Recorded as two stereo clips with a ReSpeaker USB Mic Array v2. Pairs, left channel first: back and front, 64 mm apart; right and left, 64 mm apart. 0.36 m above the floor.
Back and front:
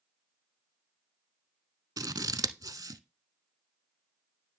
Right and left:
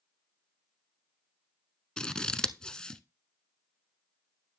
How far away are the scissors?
About 0.7 m.